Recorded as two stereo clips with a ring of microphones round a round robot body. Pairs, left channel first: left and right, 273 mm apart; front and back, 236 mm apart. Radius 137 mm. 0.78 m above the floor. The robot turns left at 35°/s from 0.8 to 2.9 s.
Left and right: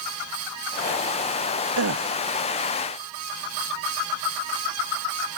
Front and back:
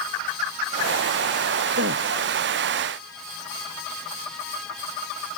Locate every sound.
1.8 s a gasp: 125° right; by 2.1 s 140° right